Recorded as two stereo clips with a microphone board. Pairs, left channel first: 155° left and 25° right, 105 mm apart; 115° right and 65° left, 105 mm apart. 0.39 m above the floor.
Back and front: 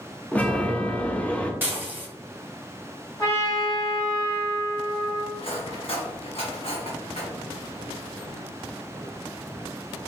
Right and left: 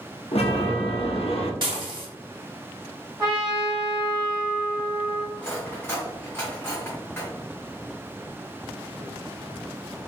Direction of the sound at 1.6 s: 45° left.